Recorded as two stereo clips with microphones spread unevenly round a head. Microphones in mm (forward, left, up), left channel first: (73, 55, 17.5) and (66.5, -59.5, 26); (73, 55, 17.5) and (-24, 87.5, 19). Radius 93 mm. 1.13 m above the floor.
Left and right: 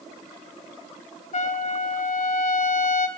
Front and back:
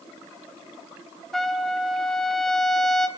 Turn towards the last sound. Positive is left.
turn(degrees=70)